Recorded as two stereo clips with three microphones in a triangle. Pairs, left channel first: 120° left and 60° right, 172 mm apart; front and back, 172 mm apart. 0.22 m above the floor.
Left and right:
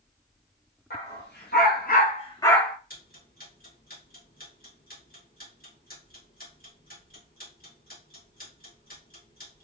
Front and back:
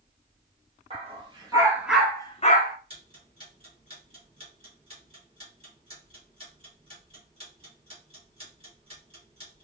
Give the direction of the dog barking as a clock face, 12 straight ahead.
8 o'clock.